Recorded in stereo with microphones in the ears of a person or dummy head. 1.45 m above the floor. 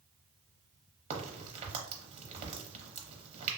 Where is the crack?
30° right (ahead or behind), 0.6 m.